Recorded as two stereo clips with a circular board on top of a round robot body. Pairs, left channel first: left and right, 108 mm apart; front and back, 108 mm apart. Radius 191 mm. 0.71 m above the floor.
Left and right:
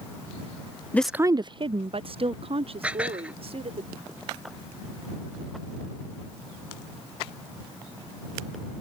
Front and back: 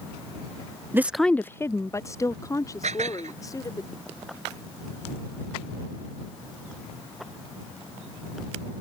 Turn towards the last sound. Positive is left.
turn(degrees=-170)